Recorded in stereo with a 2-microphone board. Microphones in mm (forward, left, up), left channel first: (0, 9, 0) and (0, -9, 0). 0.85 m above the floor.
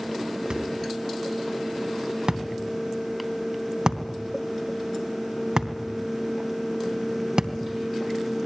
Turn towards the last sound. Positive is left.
turn(degrees=-55)  # may be behind; listen again after turning